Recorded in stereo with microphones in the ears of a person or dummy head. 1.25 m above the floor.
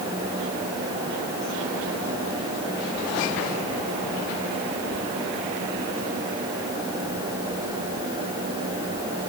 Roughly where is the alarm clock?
No alarm clock in this recording.